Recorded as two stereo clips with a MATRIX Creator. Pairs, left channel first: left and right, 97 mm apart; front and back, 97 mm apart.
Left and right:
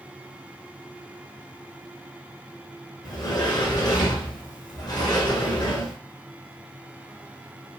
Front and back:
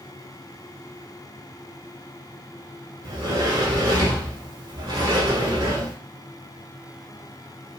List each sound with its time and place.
3.0 s a sliding door: 135° left, 1.0 m